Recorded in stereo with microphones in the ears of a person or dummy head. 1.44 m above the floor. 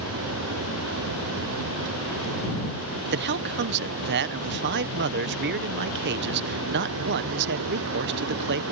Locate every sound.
0.0 s a vehicle: 80° right
3.1 s a man speaking: 60° right (ahead or behind)